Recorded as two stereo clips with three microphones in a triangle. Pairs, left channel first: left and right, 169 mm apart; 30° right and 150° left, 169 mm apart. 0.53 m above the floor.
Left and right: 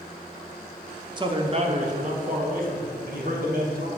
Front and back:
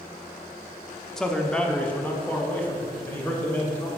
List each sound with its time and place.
1.2 s a man speaking: 115° right, 0.8 m; by 3.9 s 105° right, 2.5 m